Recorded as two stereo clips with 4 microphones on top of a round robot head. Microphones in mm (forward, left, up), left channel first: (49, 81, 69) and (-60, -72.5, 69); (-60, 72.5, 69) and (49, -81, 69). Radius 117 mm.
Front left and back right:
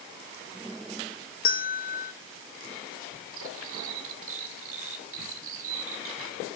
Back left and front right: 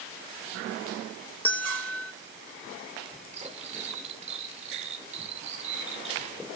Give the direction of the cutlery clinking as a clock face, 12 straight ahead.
4 o'clock.